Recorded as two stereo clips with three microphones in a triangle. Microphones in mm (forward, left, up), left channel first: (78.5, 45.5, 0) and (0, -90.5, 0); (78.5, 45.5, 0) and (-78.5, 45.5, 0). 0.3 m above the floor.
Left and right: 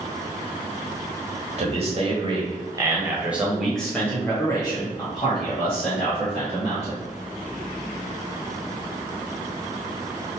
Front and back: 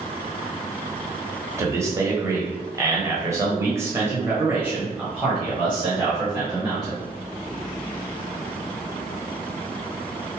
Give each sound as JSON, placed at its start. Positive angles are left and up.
{"t": 1.6, "sound": "a man speaking", "azimuth_deg": -120, "distance_m": 1.4}